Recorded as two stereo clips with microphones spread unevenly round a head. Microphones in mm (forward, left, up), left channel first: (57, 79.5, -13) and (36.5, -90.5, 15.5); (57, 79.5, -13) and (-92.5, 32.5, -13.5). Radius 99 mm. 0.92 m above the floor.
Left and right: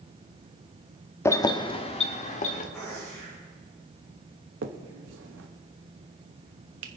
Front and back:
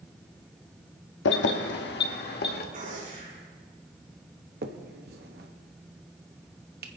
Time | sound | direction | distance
1.2 | keys jangling | 5° left | 0.8 m
2.7 | a gunshot | 165° left | 6.5 m
4.6 | a finger snap | 125° right | 1.0 m